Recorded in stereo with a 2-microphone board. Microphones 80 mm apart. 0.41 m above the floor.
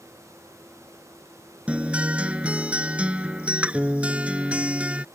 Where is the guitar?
15° right (ahead or behind).